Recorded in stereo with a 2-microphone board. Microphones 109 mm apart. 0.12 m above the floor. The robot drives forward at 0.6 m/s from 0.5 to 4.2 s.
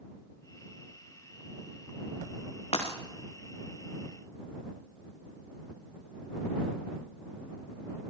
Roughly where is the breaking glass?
Left.